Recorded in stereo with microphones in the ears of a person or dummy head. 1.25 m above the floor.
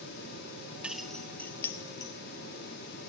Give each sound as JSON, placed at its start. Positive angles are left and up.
{"t": 0.8, "sound": "keys jangling", "side_deg": -5, "distance_m": 1.2}